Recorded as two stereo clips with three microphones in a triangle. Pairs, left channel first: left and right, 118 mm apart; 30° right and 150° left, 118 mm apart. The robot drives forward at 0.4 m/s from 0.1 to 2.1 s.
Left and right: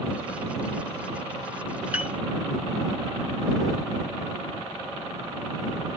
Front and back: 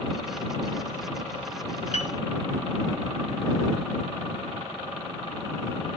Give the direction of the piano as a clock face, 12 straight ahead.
12 o'clock.